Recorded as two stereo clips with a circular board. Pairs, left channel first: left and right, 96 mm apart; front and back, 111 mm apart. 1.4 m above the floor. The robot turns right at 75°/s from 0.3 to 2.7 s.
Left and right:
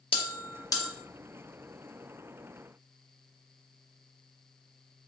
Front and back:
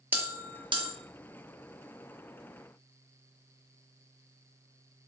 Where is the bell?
105° left, 0.8 m; by 0.9 s 155° left, 0.8 m.